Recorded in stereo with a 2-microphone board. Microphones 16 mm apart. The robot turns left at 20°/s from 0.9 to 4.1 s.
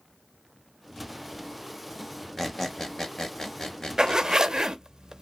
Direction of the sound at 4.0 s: 50° right (ahead or behind).